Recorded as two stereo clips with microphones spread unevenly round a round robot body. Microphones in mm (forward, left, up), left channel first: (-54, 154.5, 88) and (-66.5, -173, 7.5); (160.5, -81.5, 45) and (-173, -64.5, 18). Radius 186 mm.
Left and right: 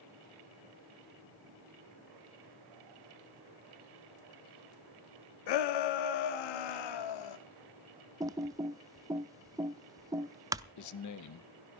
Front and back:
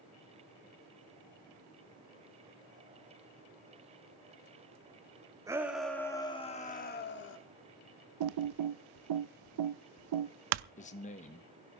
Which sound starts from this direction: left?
A shout, at 5.5 s.